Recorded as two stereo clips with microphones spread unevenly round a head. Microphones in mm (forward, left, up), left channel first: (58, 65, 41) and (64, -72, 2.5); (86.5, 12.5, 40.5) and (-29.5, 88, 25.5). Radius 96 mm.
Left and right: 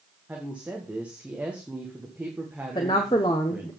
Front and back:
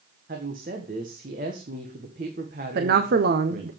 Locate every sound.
0.3 s a woman speaking: 170° right, 1.7 m
2.8 s a woman speaking: 160° left, 1.1 m